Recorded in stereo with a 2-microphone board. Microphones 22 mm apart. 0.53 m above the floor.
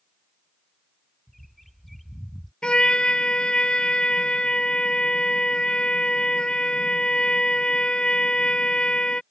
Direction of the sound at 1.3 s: 5° left (ahead or behind).